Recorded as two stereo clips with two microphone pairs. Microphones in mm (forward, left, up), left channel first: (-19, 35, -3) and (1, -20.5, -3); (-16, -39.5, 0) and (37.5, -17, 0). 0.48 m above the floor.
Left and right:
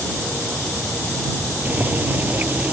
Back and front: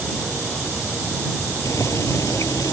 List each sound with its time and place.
1.6 s boiling: 135° right